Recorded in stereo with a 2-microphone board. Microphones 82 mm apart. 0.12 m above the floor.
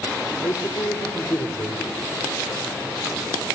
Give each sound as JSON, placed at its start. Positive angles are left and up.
{"t": 0.4, "sound": "a man speaking", "side_deg": 55, "distance_m": 2.5}